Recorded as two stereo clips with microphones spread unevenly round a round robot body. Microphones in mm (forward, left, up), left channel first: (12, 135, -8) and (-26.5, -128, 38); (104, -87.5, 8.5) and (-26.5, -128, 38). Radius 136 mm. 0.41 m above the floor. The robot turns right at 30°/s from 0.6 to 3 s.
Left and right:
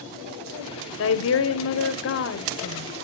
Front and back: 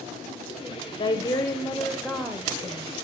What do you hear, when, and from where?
1.0 s a woman speaking: 65° left, 1.4 m; by 2.9 s 125° left, 1.4 m